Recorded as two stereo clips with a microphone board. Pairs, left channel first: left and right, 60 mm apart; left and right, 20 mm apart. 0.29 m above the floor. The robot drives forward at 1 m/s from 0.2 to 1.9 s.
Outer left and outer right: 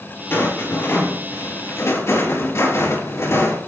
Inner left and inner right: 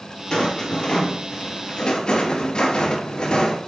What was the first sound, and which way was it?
A rattle, 40° left (ahead or behind).